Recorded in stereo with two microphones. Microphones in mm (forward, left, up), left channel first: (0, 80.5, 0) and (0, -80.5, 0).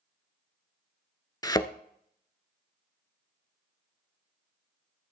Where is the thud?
25° left (ahead or behind), 0.6 m.